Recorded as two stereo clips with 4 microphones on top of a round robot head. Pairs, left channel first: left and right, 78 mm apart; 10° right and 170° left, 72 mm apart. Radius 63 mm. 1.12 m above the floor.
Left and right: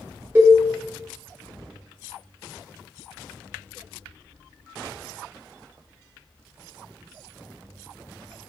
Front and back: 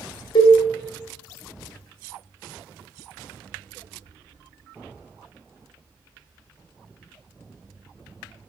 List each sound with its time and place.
0.3 s a cowbell: 25° right, 0.8 m